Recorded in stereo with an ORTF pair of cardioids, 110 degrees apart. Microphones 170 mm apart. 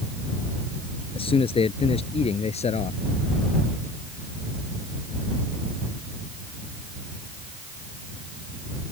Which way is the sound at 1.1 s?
35° left.